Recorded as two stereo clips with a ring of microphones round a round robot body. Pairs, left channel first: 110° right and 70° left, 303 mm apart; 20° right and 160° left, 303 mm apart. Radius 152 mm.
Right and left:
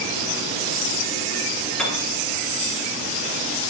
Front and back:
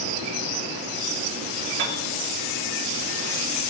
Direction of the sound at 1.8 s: 160° left.